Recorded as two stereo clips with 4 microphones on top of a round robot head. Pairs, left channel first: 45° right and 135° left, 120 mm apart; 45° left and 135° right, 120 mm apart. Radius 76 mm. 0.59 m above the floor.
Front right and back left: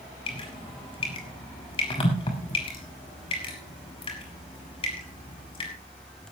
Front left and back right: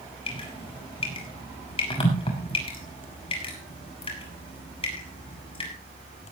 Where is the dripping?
Straight ahead, 6.5 m.